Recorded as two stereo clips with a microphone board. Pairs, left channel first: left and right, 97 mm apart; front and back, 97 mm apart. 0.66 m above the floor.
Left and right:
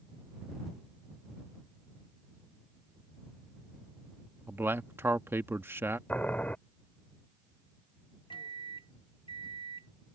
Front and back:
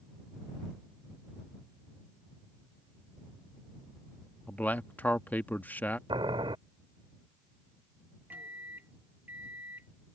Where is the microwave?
110° left.